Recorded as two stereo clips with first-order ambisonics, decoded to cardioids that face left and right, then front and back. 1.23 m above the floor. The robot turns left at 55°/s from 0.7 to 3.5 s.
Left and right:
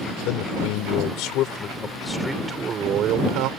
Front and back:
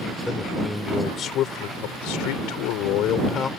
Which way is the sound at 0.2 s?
85° left.